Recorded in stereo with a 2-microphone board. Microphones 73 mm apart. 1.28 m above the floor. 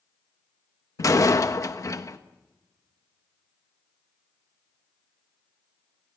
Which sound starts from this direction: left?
A door slam, at 1.0 s.